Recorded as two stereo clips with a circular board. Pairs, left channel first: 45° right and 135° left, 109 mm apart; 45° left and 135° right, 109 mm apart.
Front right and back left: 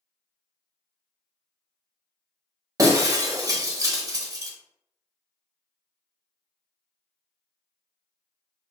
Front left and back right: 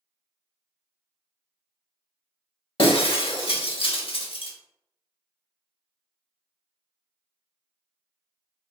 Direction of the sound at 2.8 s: 80° left.